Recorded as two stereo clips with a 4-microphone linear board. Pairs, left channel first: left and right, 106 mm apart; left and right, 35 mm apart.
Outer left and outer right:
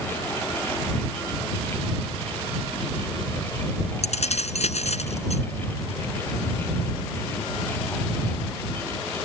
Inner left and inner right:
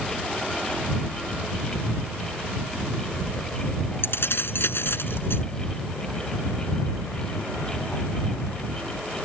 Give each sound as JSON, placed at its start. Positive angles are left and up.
{"t": 4.0, "sound": "keys jangling", "side_deg": 90}